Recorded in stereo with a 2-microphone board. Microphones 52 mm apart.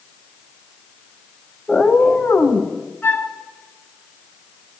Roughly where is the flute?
Left.